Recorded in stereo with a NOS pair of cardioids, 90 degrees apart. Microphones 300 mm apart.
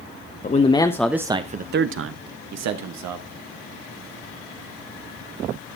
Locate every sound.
0.4 s a man speaking: 30° left, 1.0 m; by 3.3 s 80° right, 1.7 m